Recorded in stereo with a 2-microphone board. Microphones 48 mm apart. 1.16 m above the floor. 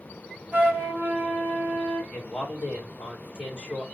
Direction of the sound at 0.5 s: 35° right (ahead or behind).